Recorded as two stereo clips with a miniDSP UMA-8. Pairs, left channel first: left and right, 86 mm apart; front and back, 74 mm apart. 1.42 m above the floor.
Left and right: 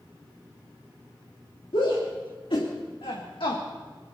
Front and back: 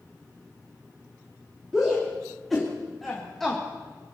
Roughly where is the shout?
Left.